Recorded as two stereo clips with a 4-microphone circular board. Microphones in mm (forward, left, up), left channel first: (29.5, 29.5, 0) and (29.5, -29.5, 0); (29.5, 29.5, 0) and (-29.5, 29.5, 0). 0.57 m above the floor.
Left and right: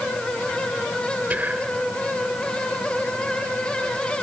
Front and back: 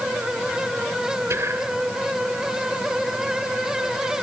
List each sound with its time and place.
1.3 s whispering: 155° right, 2.5 m